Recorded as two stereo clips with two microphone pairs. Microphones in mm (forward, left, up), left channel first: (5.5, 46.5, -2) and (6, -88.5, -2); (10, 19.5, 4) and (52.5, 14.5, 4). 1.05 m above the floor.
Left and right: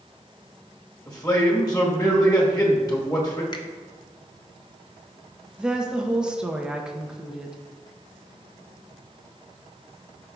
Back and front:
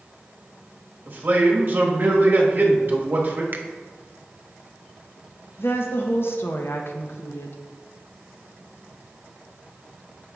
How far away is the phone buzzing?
I don't hear a phone buzzing.